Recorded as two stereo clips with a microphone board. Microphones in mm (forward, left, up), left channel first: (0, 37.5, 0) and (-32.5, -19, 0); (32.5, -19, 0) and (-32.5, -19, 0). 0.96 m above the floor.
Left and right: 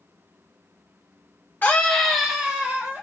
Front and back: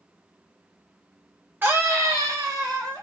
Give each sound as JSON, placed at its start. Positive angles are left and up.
{"t": 1.6, "sound": "a scream", "azimuth_deg": 120, "distance_m": 1.3}